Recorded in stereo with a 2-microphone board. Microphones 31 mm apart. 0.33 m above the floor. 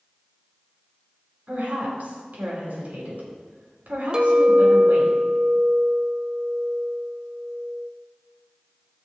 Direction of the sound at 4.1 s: 30° right (ahead or behind).